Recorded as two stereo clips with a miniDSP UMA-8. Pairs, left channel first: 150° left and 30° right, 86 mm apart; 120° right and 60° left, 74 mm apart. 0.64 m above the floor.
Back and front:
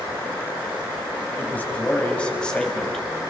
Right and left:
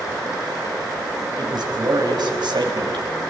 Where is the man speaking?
80° left, 4 m; by 3.0 s 65° left, 3.5 m.